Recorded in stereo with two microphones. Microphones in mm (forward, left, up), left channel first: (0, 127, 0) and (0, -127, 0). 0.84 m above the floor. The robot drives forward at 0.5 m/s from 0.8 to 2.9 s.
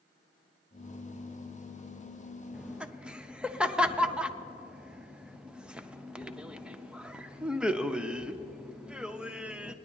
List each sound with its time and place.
2.5 s laughter: 5° right (ahead or behind), 0.5 m